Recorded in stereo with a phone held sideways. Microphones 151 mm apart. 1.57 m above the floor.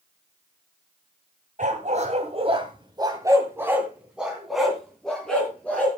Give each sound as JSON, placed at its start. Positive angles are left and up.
{"t": 1.6, "sound": "a dog barking", "side_deg": -55, "distance_m": 2.0}